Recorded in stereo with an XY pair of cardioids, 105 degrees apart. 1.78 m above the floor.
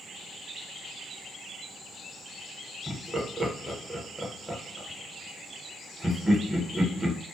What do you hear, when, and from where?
2.9 s laughter: 10° right, 1.0 m